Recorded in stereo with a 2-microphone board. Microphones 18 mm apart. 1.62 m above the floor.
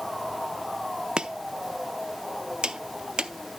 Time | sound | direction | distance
1.2 | chopping | 50° right (ahead or behind) | 0.7 m